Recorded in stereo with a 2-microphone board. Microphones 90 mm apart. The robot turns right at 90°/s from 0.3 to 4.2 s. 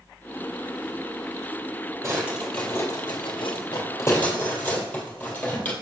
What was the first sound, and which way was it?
A drawer, 30° right (ahead or behind).